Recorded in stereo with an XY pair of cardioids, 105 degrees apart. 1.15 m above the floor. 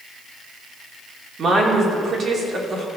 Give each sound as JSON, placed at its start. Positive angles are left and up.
{"t": 1.4, "sound": "a woman speaking", "azimuth_deg": -45, "distance_m": 2.5}